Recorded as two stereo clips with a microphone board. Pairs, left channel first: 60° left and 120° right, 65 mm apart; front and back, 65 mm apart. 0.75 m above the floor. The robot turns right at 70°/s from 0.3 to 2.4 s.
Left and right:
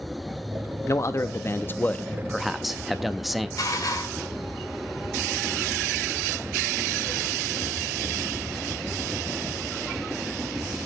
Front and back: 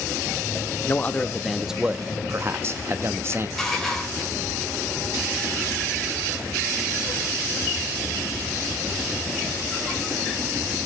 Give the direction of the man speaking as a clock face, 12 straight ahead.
11 o'clock.